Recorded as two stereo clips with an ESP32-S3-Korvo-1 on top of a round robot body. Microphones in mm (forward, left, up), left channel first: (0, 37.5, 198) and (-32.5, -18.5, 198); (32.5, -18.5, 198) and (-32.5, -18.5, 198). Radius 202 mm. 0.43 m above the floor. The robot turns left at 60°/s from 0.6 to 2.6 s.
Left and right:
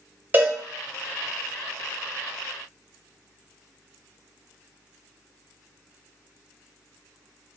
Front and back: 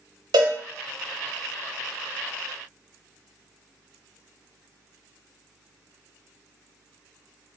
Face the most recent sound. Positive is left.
turn(degrees=55)